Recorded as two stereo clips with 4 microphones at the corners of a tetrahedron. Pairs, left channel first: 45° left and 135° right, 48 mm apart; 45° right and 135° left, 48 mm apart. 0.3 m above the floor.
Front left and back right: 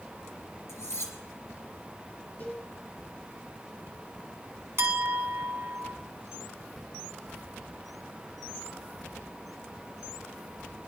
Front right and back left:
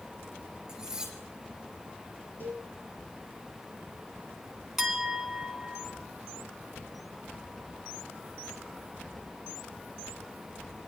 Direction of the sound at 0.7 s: 55° left.